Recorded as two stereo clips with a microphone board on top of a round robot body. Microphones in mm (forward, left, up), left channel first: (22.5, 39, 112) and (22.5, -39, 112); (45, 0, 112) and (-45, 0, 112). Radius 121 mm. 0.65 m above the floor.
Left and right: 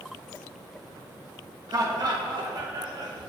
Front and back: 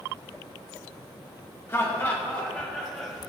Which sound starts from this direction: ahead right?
Laughter, at 1.7 s.